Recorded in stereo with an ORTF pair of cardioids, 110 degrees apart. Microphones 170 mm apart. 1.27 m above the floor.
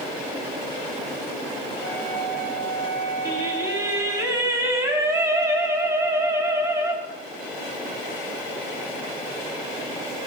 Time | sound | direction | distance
1.8 | a flute | 65° right | 5 m
3.2 | singing | 20° right | 5 m